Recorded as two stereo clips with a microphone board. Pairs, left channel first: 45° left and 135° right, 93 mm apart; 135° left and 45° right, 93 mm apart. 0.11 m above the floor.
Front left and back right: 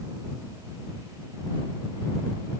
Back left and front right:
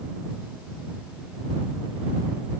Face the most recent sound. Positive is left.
No sound to turn to.